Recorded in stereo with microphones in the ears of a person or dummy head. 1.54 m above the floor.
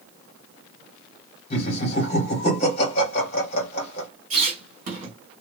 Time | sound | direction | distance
1.5 | laughter | 40° left (ahead or behind) | 1.4 m
4.3 | a squeak | 50° right (ahead or behind) | 1.3 m